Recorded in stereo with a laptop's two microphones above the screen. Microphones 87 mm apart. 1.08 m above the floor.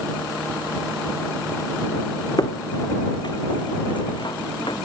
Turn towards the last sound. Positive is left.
turn(degrees=70)  # may be behind; listen again after turning